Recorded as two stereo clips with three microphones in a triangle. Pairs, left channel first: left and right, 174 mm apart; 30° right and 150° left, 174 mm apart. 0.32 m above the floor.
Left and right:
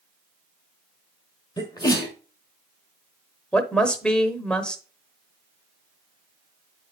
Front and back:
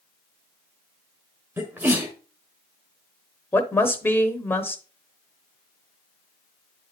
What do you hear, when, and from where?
1.6 s a sneeze: 95° left, 1.3 m
3.5 s a woman speaking: 15° left, 0.9 m